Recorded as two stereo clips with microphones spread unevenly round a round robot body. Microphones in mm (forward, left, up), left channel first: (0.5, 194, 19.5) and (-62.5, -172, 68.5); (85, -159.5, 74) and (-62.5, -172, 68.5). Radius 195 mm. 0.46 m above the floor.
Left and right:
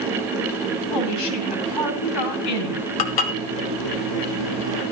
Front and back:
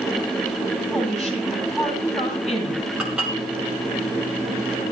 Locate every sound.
0.9 s a woman speaking: 95° left, 4 m
3.0 s dishes clattering: 100° left, 1.5 m